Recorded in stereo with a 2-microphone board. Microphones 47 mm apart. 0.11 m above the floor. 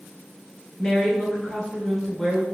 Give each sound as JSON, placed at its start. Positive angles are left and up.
{"t": 0.8, "sound": "a woman speaking", "side_deg": 15, "distance_m": 1.1}